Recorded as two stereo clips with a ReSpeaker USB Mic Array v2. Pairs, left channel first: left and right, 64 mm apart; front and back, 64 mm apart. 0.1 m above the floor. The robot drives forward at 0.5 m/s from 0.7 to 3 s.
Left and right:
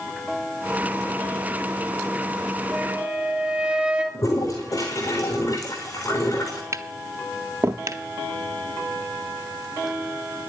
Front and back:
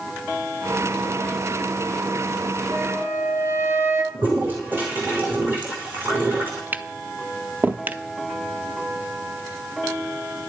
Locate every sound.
2.7 s a flute: 150° right, 1.7 m; by 4.0 s 155° right, 1.8 m
4.1 s a toilet flushing: 120° left, 3 m
6.7 s tapping: 120° right, 0.6 m